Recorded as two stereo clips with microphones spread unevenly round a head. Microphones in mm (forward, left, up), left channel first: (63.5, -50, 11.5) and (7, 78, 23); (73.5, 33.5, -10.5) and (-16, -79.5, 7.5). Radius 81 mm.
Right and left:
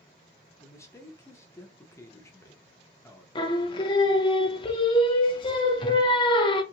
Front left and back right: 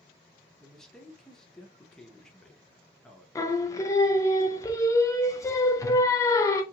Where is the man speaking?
20° right, 0.8 m.